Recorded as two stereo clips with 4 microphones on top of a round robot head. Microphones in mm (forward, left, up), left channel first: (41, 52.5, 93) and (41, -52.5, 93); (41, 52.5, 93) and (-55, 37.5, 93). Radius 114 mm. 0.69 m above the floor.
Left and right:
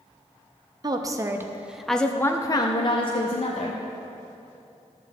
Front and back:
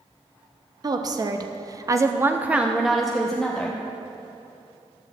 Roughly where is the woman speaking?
Behind right.